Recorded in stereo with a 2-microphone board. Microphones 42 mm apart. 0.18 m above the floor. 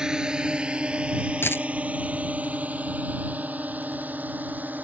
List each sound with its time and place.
0.0 s a drone: 20° right (ahead or behind); by 4.8 s 45° right (ahead or behind)
1.4 s a dropped coin: 75° left (ahead or behind)